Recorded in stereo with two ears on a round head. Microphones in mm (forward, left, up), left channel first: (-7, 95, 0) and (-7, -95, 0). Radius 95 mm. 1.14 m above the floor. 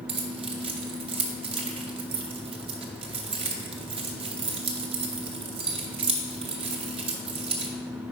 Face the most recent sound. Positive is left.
turn(degrees=-25)  # may be behind; listen again after turning